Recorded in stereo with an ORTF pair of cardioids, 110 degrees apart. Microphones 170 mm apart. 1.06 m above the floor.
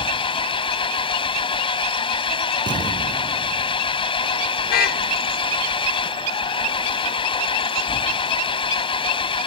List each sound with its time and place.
0.0 s an engine running: 30° left
2.7 s an explosion: 25° right
4.7 s a car horn: 65° left